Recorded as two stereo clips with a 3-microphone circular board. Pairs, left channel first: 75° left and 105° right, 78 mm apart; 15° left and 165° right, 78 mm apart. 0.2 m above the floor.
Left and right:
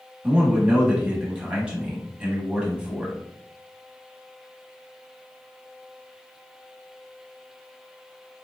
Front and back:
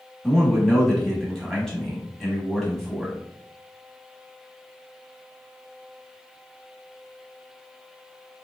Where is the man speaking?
55° right, 1.0 m.